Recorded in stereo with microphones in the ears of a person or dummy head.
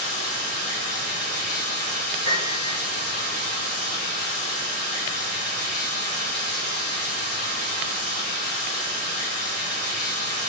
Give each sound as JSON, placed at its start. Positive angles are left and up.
{"t": 0.0, "sound": "running water", "side_deg": -30, "distance_m": 0.7}
{"t": 2.2, "sound": "a piano", "side_deg": -30, "distance_m": 1.0}